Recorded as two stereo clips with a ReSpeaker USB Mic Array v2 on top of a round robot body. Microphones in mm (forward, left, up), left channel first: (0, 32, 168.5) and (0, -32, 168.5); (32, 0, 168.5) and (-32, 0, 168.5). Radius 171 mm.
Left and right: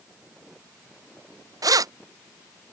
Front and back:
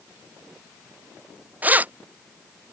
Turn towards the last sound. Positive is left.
turn(degrees=-115)